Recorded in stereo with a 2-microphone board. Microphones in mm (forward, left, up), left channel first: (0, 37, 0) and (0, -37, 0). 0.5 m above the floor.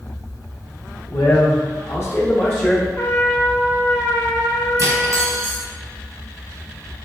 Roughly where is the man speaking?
Left.